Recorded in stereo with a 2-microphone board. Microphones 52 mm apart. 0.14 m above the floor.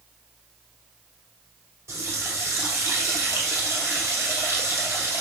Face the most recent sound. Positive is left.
turn(degrees=-65)  # may be behind; listen again after turning